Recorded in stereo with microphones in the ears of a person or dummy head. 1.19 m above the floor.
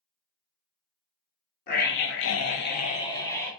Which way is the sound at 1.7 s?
55° left (ahead or behind).